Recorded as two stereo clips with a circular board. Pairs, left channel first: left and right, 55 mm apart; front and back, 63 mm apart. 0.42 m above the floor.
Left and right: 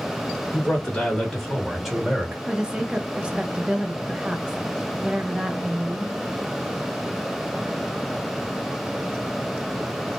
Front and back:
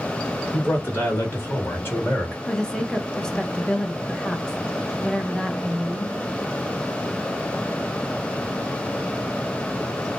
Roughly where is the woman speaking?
Ahead right.